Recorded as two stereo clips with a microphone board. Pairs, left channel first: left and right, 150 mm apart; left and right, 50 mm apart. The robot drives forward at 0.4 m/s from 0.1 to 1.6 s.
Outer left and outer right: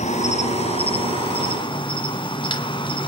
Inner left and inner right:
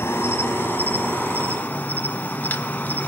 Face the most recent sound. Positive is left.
turn(degrees=35)  # may be behind; listen again after turning